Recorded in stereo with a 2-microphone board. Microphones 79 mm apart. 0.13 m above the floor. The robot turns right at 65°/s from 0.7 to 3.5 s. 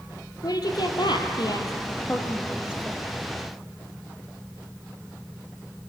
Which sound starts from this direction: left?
A woman speaking, at 0.4 s.